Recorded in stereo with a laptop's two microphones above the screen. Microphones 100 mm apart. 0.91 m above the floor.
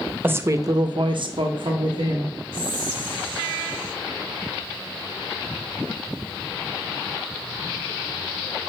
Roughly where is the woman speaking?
Right.